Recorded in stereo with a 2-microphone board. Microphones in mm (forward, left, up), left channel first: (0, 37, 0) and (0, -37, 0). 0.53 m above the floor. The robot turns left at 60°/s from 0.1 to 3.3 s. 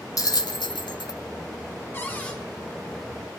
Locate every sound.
0.2 s a bell: 50° left (ahead or behind), 0.7 m; by 1.2 s 70° left (ahead or behind), 0.7 m
1.9 s a cupboard door: 30° left (ahead or behind), 1.4 m; by 2.4 s 15° left (ahead or behind), 1.4 m